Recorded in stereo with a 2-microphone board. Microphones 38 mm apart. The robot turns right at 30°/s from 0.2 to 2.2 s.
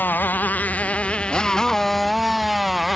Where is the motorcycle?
120° left; by 3.0 s straight behind.